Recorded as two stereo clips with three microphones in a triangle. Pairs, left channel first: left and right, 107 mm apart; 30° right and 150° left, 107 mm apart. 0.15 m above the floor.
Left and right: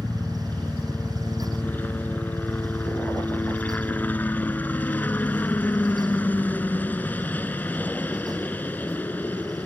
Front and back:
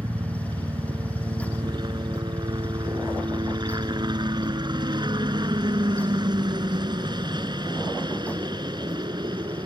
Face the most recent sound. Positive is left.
turn(degrees=155)